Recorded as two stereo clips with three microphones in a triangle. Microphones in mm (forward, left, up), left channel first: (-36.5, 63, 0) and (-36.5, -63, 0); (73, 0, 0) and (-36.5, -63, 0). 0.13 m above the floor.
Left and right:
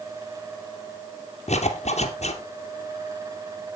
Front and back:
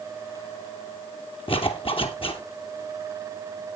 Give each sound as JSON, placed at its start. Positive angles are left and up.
{"t": 1.5, "sound": "a zipper", "azimuth_deg": 70, "distance_m": 2.5}